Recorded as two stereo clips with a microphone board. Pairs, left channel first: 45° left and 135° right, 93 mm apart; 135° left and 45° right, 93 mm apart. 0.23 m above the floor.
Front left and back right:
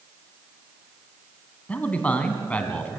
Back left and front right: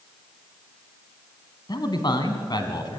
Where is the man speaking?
115° left, 2 m.